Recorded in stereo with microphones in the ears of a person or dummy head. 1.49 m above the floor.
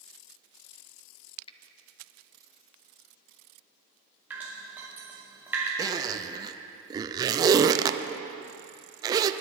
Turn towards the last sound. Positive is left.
turn(degrees=-25)  # may be behind; listen again after turning